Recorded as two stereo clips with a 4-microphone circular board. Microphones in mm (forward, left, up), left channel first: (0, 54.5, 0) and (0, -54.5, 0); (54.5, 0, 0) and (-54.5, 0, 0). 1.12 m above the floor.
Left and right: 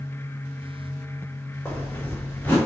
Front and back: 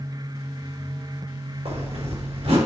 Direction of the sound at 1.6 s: 165° left.